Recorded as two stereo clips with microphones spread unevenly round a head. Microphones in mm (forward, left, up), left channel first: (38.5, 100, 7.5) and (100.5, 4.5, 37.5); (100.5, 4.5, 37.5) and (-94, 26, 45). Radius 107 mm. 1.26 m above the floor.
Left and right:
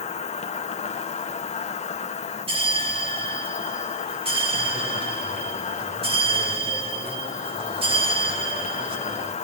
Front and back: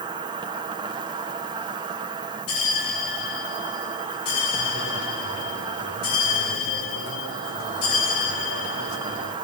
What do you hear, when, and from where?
0.0 s an insect: 105° left, 1.8 m
2.5 s a bell: 30° right, 3 m